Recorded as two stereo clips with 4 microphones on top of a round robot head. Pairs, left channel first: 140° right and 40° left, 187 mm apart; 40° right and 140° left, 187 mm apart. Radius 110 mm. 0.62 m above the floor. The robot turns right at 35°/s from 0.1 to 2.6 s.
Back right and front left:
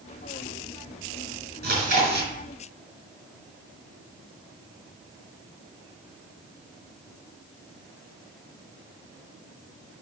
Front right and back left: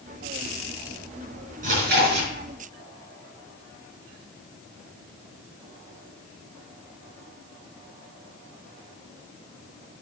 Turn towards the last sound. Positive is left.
turn(degrees=120)